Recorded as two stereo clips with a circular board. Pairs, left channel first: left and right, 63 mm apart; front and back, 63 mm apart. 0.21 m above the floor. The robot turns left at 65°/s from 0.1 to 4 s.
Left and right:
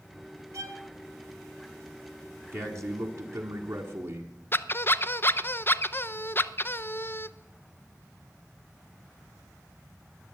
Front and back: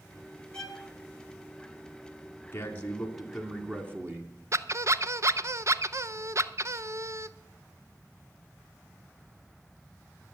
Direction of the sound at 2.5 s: 45° right.